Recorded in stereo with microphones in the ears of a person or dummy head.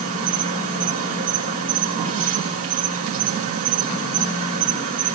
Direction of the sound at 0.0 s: 45° right (ahead or behind).